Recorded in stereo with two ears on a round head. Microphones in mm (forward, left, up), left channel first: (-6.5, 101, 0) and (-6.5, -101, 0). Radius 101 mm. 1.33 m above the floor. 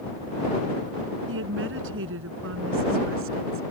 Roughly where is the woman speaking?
Right.